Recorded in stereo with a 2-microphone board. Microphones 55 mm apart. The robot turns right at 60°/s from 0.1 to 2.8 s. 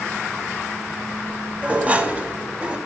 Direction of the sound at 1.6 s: 20° right (ahead or behind).